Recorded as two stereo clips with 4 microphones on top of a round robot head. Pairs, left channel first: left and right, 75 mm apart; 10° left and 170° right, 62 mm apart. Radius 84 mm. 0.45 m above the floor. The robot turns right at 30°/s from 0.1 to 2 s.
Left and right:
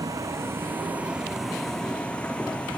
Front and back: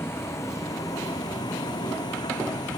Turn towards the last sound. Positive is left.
turn(degrees=15)